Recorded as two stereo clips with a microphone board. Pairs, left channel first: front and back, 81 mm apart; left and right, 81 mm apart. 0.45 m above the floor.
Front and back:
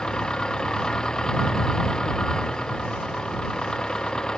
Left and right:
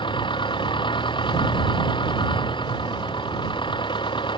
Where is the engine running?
80° left.